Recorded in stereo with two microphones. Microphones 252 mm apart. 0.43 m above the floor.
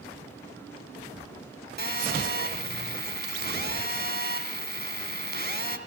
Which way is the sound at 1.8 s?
45° right (ahead or behind).